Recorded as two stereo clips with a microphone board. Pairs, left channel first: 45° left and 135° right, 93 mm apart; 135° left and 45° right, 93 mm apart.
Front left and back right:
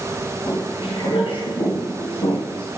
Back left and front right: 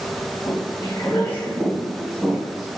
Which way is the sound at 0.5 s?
80° left.